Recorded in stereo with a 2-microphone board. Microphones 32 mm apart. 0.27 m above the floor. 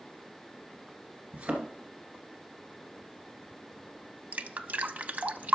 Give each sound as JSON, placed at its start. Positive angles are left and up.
{"t": 1.3, "sound": "a thud", "side_deg": -55, "distance_m": 2.0}
{"t": 4.3, "sound": "dripping", "side_deg": -55, "distance_m": 0.6}